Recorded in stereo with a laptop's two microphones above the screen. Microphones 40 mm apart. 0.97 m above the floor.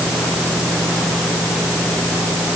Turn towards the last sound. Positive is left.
No sound to turn to.